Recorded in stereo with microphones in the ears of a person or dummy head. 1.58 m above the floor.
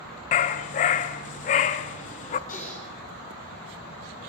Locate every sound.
0.3 s a dog barking: 30° left (ahead or behind), 1.1 m
2.5 s typing on a keyboard: 40° left (ahead or behind), 10 m